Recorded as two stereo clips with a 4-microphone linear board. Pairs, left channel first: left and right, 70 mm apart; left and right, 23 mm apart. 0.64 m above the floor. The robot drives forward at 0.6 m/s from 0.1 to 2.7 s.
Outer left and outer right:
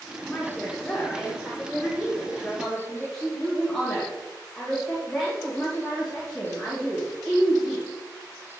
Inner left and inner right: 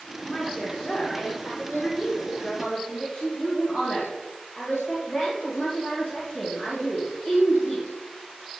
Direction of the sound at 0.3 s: 20° left (ahead or behind).